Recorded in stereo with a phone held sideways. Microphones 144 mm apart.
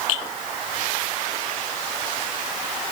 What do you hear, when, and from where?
Only background noise.